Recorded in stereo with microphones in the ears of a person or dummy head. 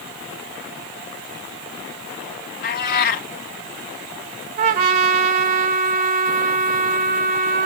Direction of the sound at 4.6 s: 40° right (ahead or behind).